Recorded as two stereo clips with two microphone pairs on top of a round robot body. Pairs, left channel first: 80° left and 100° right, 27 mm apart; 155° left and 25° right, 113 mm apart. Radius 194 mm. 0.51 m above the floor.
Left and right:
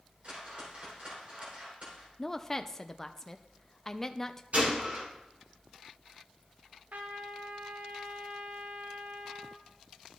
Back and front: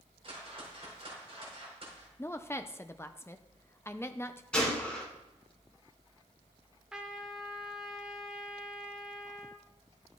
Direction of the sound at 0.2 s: 55° right.